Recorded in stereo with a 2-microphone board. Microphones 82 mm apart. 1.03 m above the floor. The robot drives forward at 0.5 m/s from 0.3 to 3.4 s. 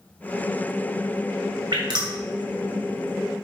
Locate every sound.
1.7 s dripping: 70° right (ahead or behind), 2.5 m